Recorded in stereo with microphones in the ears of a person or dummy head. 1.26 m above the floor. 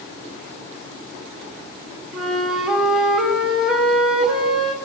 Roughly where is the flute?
Centre.